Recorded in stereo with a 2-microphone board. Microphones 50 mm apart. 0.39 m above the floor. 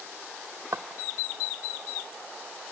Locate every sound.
0.7 s footsteps: 60° right (ahead or behind), 0.8 m